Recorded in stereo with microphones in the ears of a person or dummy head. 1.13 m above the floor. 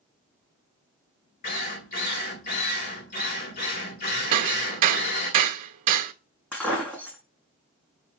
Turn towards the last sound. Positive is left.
turn(degrees=10)  # may be behind; listen again after turning